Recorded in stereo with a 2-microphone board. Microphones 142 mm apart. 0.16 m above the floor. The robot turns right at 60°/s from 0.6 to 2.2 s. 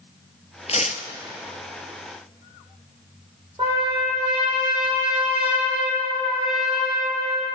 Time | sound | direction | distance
0.7 | tearing paper | 50° left (ahead or behind) | 0.6 m
3.6 | a trumpet | 35° right (ahead or behind) | 3.5 m